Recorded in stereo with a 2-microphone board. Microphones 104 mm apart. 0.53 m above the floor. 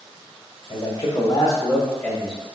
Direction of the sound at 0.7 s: 60° left (ahead or behind).